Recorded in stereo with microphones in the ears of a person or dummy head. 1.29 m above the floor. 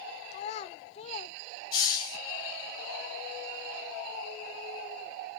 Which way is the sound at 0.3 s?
35° left (ahead or behind).